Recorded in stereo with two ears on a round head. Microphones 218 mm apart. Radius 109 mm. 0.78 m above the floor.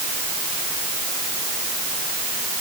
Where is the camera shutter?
No camera shutter in this recording.